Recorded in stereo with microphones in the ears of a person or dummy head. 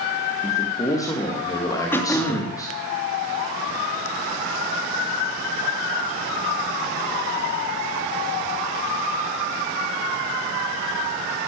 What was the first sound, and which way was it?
A man speaking, 15° left (ahead or behind).